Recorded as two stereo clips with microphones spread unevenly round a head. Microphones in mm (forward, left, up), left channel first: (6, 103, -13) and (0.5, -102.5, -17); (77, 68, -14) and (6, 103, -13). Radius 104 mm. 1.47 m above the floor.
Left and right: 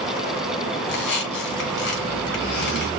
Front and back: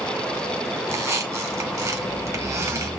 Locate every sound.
0.8 s a squeak: 110° left, 2.5 m